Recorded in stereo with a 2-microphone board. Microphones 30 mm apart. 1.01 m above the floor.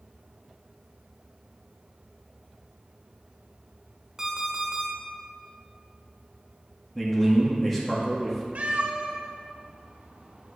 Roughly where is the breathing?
I don't hear breathing.